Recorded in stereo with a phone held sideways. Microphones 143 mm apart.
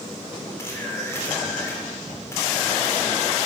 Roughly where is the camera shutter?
Centre.